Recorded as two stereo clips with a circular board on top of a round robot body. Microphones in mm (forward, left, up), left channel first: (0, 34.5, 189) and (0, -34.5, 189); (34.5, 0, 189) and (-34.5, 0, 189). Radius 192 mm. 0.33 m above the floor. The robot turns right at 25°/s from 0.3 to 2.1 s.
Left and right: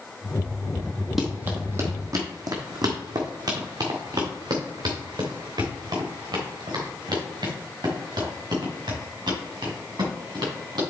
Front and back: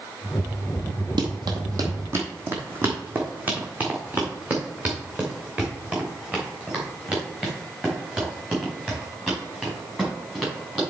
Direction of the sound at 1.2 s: 175° right.